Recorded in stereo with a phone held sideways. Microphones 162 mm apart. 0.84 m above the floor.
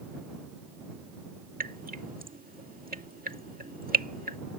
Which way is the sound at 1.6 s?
65° right (ahead or behind).